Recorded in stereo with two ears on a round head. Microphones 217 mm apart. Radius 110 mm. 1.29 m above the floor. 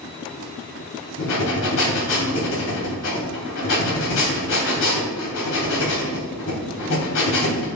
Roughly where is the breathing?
Left.